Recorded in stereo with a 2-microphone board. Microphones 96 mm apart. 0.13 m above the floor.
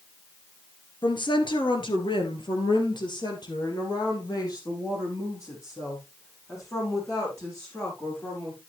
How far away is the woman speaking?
About 2 m.